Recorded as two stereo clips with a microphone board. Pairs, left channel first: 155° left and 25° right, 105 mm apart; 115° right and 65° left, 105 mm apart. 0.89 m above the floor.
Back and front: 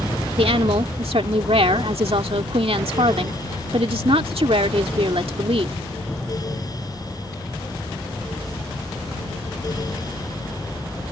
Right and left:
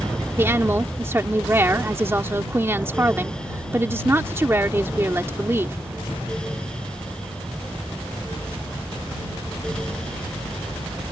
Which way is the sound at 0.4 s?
Straight ahead.